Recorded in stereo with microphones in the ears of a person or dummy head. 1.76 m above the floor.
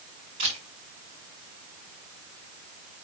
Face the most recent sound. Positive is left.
turn(degrees=-40)  # may be behind; listen again after turning